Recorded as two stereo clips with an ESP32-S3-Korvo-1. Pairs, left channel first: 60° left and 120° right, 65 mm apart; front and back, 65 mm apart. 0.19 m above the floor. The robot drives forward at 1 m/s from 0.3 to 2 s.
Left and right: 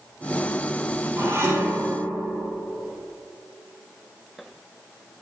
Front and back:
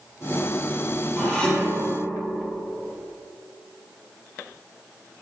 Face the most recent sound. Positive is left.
turn(degrees=-80)